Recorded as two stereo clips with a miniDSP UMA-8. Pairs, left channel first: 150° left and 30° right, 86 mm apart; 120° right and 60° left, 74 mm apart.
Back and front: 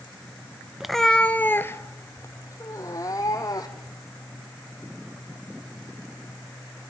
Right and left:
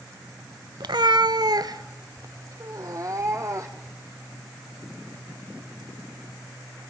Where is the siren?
I don't hear a siren.